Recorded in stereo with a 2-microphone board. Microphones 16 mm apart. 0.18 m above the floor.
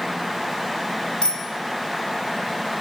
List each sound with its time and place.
1.2 s a bicycle bell: 65° left (ahead or behind), 5 m